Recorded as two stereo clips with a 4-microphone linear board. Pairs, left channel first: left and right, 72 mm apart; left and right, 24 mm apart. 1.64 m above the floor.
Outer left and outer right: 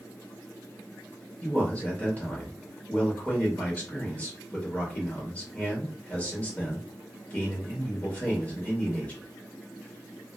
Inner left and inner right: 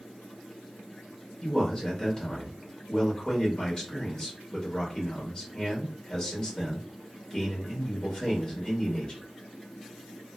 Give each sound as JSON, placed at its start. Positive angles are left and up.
{"t": 1.4, "sound": "a man speaking", "side_deg": 25, "distance_m": 0.9}